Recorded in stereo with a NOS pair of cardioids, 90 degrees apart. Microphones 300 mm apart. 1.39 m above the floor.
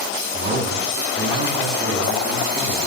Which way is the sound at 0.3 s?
35° right.